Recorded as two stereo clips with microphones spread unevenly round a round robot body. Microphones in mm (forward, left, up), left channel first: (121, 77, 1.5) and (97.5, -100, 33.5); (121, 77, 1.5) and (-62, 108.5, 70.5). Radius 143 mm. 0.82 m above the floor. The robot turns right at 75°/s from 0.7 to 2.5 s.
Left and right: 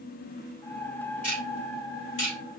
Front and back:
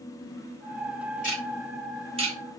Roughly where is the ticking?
Ahead left.